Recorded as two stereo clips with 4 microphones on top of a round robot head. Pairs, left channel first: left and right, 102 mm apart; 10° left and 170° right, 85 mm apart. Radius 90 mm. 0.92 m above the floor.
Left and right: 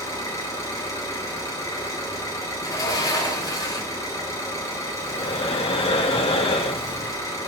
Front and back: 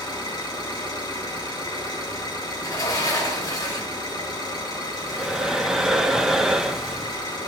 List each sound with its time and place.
0.0 s an engine running: 35° left, 10 m
2.6 s a sliding door: 45° left, 4.5 m
5.0 s breathing: 105° left, 1.4 m